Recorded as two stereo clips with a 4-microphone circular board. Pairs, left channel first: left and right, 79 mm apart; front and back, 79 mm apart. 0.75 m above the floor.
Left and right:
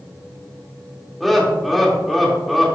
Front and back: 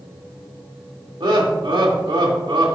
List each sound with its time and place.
1.2 s laughter: straight behind, 2 m